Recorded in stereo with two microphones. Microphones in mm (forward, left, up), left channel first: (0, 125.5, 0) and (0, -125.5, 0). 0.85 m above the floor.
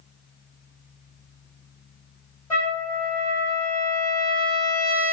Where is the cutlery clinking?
I don't hear cutlery clinking.